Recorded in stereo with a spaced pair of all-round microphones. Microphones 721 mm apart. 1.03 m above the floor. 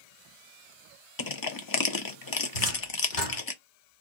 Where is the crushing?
35° left (ahead or behind), 0.5 m.